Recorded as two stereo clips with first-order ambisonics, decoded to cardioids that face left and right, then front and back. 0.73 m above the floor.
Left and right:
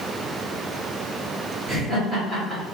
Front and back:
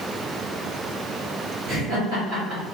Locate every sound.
1.7 s laughter: 170° right, 2.0 m